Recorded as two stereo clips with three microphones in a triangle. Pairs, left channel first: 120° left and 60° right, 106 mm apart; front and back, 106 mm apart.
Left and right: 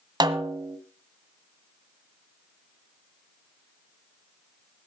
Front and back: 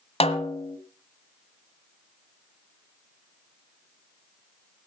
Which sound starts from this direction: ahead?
A snare drum, at 0.2 s.